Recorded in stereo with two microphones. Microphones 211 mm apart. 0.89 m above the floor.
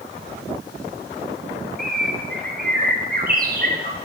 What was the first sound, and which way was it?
A bird, 45° right (ahead or behind).